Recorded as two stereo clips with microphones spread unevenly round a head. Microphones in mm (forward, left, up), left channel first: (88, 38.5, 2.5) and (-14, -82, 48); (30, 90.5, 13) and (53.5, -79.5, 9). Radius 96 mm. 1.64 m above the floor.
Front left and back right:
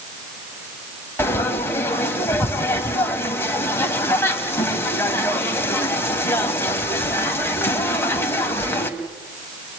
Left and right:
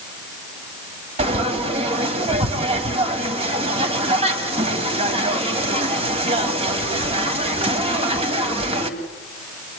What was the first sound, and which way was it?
Frying, 35° right.